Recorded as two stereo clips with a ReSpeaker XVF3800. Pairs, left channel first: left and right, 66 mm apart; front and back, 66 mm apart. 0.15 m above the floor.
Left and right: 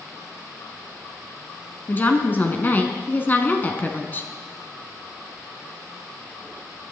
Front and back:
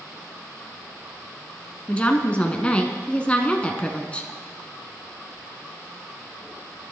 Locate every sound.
1.9 s a woman speaking: 55° left, 1.5 m